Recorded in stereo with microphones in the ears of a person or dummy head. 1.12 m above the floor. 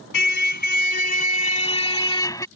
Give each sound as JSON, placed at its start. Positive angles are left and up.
{"t": 0.1, "sound": "a car horn", "side_deg": 60}